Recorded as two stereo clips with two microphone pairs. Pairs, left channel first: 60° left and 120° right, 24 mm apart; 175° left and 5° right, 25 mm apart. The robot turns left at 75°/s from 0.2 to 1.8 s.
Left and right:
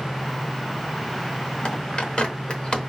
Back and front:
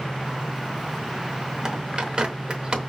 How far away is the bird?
About 0.8 m.